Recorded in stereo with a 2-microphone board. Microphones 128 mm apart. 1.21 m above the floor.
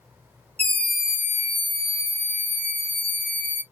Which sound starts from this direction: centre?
A scream, at 0.6 s.